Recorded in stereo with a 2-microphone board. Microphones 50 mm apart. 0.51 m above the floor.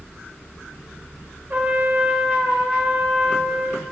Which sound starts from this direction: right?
A trumpet, at 1.5 s.